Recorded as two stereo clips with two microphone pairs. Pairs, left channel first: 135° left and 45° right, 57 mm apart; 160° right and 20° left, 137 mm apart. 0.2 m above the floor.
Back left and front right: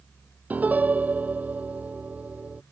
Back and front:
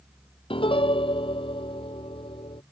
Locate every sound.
0.5 s a piano: 110° right